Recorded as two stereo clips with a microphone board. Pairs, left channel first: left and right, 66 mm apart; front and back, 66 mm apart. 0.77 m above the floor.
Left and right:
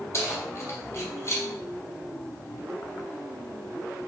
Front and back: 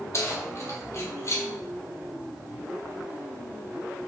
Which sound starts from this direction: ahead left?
Keys jangling, at 0.1 s.